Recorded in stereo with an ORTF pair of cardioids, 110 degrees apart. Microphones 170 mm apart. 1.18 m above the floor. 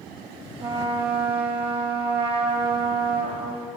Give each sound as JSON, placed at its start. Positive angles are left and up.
{"t": 0.6, "sound": "a trumpet", "azimuth_deg": -30, "distance_m": 1.1}